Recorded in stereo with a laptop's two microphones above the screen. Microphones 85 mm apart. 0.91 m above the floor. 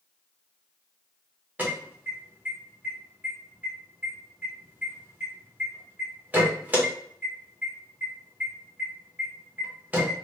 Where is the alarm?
20° right (ahead or behind), 1.5 m.